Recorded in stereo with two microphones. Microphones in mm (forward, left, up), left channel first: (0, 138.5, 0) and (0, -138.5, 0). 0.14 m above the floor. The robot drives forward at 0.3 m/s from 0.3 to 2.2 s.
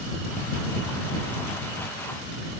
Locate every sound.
Only background noise.